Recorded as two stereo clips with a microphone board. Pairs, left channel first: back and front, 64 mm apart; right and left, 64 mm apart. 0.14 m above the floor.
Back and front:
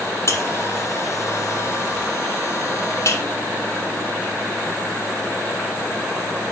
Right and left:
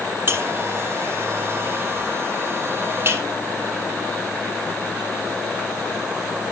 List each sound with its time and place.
0.3 s a buzzer: 140° left, 5.5 m